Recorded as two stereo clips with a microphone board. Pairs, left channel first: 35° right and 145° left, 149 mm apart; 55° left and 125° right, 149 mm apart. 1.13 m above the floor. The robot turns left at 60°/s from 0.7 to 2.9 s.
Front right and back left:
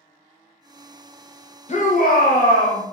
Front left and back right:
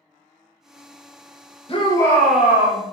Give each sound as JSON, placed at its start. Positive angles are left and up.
{"t": 1.7, "sound": "a shout", "azimuth_deg": 5, "distance_m": 0.7}